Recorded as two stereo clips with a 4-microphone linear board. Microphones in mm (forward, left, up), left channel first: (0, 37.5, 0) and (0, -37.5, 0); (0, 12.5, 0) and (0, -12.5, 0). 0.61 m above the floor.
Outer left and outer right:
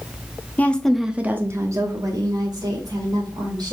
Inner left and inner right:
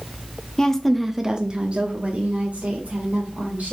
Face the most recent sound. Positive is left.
turn(degrees=-75)  # may be behind; listen again after turning